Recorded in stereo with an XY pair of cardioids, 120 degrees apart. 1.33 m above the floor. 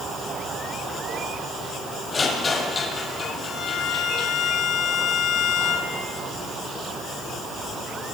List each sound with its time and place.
2.1 s a rattle: 30° left, 9 m
3.5 s a violin: 70° left, 4 m